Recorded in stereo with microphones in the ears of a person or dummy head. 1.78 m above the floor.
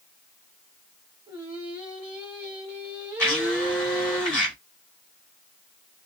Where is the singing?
20° right (ahead or behind), 1.6 m.